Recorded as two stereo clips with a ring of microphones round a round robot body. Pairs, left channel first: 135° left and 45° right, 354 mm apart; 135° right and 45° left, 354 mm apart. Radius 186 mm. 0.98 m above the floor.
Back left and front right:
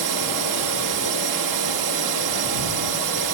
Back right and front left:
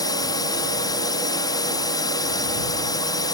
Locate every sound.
0.0 s a drone: 55° right